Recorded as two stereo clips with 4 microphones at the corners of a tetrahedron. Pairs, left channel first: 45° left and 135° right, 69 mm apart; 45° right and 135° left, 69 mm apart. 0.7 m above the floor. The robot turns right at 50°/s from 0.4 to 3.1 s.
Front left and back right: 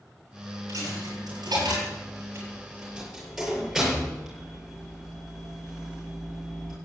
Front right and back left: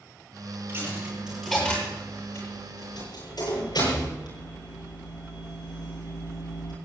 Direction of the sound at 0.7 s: 170° right.